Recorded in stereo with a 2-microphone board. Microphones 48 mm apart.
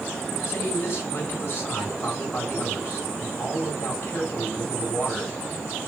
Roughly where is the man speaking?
Left.